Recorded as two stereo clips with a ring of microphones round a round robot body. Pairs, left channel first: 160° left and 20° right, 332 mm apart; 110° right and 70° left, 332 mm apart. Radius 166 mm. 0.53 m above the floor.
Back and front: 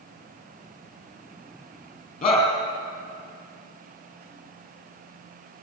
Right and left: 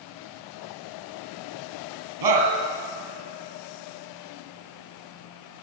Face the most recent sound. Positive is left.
turn(degrees=85)